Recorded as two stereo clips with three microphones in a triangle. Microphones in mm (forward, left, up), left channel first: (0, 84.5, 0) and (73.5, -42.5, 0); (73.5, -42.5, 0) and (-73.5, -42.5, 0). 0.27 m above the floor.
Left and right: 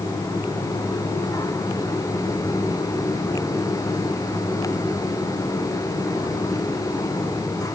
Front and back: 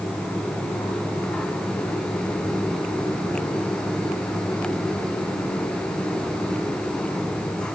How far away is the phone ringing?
I don't hear a phone ringing.